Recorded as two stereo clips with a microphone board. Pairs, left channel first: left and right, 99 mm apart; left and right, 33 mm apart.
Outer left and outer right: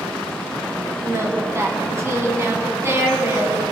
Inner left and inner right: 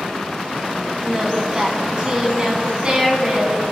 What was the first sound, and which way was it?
Singing, 30° right (ahead or behind).